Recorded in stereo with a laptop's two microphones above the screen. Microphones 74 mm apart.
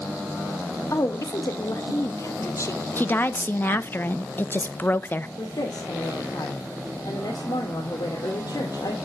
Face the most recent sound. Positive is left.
turn(degrees=80)